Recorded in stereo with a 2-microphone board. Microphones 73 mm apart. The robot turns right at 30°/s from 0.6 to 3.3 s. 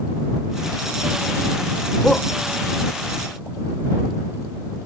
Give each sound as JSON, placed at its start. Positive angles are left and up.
{"t": 2.0, "sound": "a shout", "side_deg": 5}